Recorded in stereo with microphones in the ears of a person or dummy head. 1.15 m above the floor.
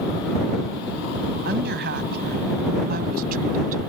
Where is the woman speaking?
55° right (ahead or behind); by 3.9 s 40° right (ahead or behind).